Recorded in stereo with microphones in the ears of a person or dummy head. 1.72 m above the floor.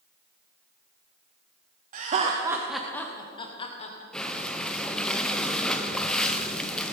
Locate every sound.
1.9 s laughter: 40° right (ahead or behind), 0.9 m; by 4.0 s 45° left (ahead or behind), 1.4 m
4.1 s breathing: centre (ahead or behind), 0.7 m